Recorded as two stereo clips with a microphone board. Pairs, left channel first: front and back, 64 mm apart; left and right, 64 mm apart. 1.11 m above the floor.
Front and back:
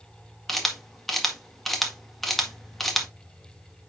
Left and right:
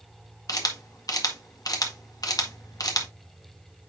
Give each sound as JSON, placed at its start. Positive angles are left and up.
{"t": 0.5, "sound": "a camera shutter", "azimuth_deg": 90, "distance_m": 1.6}